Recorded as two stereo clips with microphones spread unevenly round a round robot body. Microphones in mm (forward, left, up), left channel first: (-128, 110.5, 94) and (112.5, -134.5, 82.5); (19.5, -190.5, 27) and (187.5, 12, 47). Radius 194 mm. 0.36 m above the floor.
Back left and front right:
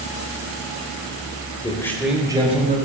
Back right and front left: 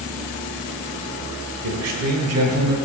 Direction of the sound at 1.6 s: 60° left.